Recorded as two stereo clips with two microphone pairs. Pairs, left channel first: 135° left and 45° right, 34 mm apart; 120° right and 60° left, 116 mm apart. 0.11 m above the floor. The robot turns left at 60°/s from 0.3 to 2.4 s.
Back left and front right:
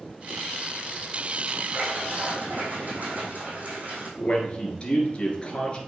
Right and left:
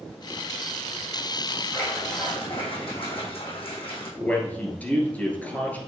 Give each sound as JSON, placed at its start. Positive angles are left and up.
{"t": 1.7, "sound": "a splash", "azimuth_deg": -40, "distance_m": 3.0}
{"t": 4.2, "sound": "a man speaking", "azimuth_deg": 175, "distance_m": 2.0}